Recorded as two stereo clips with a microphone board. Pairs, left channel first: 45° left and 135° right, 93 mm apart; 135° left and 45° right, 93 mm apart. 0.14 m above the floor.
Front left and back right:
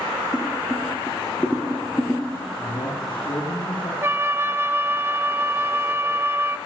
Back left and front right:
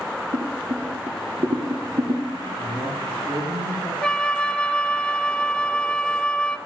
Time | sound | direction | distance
0.3 | boiling | 45° right | 3 m
2.6 | a man speaking | 10° left | 8.5 m
4.0 | a flute | 155° right | 0.6 m